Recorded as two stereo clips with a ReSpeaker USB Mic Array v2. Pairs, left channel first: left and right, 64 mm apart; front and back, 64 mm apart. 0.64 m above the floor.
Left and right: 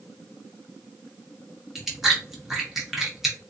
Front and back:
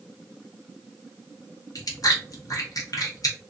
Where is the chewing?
5° right, 1.0 m.